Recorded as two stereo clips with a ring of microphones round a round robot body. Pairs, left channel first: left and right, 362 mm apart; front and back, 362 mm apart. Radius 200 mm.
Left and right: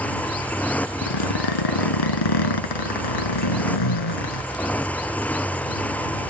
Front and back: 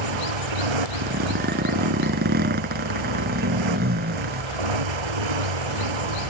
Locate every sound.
0.0 s a motorcycle: 175° left
1.0 s a zipper: 110° left